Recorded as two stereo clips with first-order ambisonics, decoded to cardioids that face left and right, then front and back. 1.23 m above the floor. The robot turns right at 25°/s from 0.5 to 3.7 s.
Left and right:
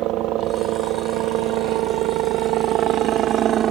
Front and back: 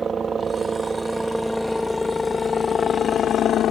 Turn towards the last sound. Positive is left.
turn(degrees=-45)